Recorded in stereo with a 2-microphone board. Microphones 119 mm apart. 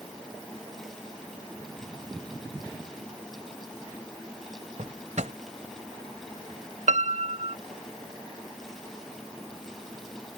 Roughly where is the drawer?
Right.